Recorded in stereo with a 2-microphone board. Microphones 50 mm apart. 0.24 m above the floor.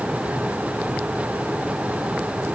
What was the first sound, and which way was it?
Only background noise.